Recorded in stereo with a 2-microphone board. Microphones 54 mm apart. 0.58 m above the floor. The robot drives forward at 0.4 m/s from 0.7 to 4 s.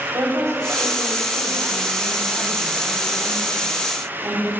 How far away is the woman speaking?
About 3.5 m.